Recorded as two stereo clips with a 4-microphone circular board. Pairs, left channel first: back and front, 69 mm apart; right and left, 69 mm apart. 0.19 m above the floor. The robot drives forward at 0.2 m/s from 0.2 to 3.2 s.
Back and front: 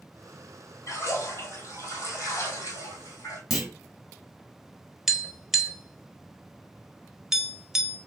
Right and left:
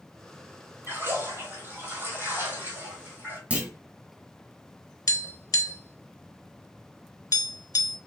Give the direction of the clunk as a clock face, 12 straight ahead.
9 o'clock.